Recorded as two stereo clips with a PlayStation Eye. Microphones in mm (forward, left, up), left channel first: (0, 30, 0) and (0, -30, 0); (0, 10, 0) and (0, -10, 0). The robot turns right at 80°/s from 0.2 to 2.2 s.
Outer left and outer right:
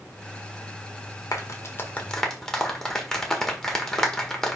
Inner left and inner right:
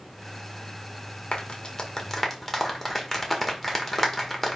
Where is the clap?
65° left (ahead or behind), 1.4 m; by 4.6 s 10° left (ahead or behind), 1.4 m.